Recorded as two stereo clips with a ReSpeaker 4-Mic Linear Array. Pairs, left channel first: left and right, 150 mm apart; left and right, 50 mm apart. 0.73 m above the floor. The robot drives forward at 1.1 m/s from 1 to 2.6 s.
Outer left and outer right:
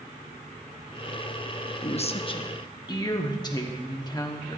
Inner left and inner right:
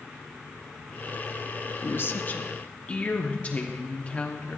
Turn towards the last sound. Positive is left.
turn(degrees=25)  # may be behind; listen again after turning